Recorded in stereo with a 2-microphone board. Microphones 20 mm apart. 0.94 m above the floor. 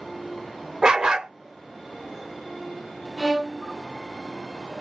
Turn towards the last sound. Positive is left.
turn(degrees=-5)  # may be behind; listen again after turning